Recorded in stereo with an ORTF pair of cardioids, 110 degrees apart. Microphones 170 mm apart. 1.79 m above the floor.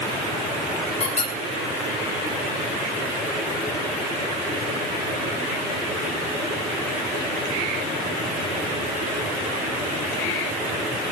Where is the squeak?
40° left, 5.5 m.